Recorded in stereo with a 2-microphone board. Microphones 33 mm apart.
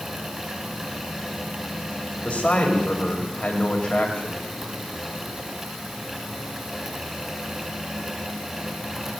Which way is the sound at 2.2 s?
35° left (ahead or behind).